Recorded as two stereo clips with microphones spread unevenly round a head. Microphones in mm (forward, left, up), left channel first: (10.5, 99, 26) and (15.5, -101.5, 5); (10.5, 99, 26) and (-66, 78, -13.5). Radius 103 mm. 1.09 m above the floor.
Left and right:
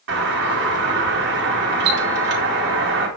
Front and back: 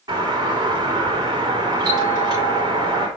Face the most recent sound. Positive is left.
turn(degrees=-125)